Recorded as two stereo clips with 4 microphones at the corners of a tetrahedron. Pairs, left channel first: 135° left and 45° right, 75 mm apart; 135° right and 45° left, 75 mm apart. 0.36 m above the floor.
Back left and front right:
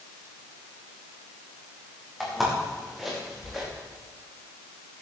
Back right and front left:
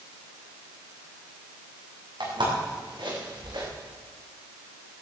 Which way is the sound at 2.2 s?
40° left.